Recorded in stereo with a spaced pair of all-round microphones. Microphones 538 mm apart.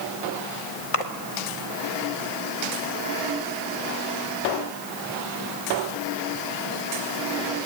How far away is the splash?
About 1.4 m.